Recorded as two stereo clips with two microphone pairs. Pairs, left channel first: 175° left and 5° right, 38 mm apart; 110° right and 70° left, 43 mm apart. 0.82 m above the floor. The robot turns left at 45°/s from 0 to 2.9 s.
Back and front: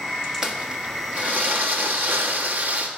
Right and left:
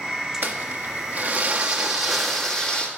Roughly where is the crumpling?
Ahead left.